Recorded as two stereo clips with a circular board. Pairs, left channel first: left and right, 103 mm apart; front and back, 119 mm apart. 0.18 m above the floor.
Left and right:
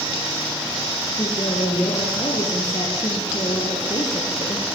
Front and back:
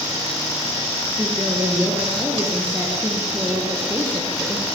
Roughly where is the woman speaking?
Behind left.